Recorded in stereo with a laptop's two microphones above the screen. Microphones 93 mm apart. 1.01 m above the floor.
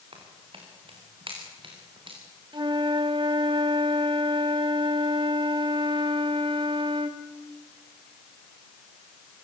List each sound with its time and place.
0.1 s footsteps: 75° right (ahead or behind), 6 m; by 2.2 s 65° right (ahead or behind), 6.5 m
2.5 s a flute: 55° right (ahead or behind), 1.5 m